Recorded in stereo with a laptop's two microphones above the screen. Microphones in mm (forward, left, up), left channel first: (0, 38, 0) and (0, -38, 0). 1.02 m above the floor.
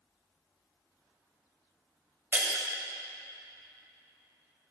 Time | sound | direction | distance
2.3 | breaking glass | 25° right (ahead or behind) | 2.5 m